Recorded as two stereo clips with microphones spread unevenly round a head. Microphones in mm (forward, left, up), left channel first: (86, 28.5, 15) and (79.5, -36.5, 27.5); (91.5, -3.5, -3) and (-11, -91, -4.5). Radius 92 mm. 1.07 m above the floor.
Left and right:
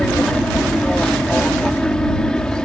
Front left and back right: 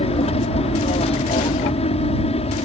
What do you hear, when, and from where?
0.0 s an aircraft: 5° left